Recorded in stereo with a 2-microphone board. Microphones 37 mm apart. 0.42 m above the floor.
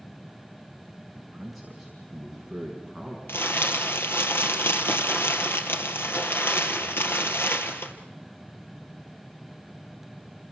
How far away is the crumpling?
About 2.5 m.